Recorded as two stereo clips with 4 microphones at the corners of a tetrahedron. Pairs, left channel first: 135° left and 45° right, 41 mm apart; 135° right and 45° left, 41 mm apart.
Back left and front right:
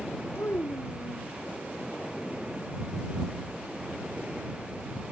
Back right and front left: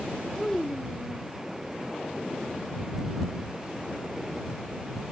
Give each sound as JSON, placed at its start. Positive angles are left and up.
{"t": 0.3, "sound": "a child speaking", "azimuth_deg": 150}